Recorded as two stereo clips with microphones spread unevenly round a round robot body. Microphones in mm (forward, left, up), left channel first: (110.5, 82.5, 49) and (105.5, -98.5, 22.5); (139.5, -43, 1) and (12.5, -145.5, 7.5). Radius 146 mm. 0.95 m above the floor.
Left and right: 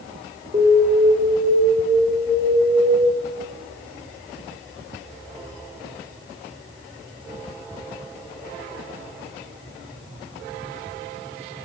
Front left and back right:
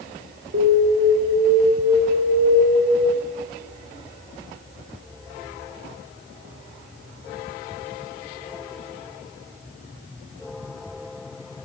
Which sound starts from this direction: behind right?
An alarm, at 0.5 s.